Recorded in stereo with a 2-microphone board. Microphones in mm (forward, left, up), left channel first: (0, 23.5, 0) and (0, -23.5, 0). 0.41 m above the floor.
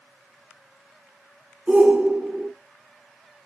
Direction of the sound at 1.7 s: 25° right (ahead or behind).